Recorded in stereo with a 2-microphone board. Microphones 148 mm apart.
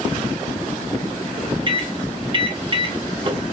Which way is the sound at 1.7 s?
35° right (ahead or behind).